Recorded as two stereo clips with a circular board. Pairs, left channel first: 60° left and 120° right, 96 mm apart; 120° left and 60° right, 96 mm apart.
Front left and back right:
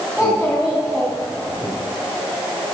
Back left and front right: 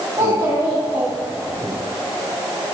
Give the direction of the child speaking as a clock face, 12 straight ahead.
1 o'clock.